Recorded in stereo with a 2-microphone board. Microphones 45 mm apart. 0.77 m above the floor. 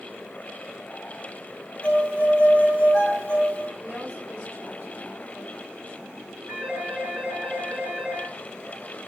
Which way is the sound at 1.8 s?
25° left (ahead or behind).